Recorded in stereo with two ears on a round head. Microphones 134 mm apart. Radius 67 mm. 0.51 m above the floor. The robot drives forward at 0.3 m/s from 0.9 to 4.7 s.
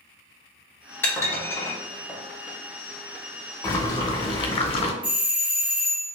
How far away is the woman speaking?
No woman speaking in this recording.